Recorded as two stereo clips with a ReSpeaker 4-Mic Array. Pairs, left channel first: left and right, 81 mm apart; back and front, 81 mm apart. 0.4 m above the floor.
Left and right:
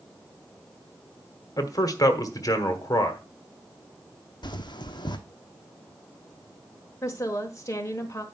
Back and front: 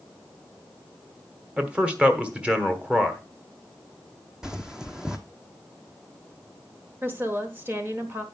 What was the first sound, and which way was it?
A man speaking, 70° left.